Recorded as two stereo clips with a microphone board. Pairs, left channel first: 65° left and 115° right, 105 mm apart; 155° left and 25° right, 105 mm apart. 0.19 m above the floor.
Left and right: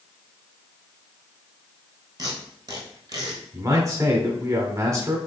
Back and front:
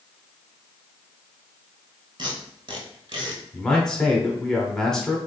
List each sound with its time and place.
2.2 s tape being pulled: 60° right, 1.1 m
3.5 s a man speaking: 125° right, 1.1 m